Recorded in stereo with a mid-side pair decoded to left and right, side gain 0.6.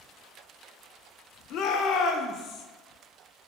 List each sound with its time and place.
1.5 s a shout: 60° left, 0.7 m